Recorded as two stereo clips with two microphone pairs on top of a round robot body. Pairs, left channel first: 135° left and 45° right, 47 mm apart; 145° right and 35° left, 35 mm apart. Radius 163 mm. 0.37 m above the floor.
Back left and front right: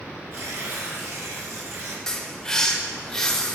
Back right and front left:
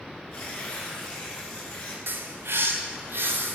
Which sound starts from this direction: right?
Tearing paper, at 0.3 s.